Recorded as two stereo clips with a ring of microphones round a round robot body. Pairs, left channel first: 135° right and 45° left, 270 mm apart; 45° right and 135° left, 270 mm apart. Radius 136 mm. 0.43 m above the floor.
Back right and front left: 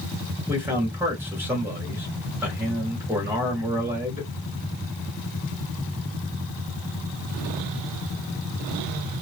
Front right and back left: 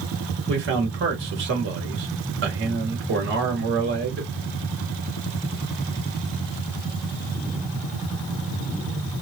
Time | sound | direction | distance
0.5 | a man speaking | 125° left | 1.4 m